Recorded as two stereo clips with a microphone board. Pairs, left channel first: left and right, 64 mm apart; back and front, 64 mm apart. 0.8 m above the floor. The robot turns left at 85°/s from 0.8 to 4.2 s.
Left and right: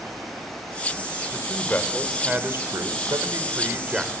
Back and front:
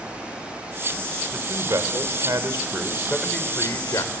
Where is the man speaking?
60° left, 2.5 m; by 4.1 s 175° right, 2.5 m.